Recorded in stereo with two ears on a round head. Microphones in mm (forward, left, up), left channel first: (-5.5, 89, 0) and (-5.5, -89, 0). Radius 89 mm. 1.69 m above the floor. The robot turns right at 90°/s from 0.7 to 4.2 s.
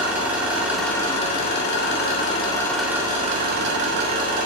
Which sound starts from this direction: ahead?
An engine running, at 0.0 s.